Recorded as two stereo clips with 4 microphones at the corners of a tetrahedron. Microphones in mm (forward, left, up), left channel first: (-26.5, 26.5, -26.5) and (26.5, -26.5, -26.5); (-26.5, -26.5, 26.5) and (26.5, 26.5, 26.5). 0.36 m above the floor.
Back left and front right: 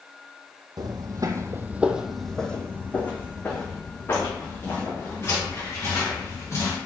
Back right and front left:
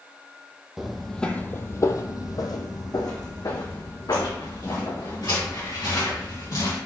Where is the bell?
No bell in this recording.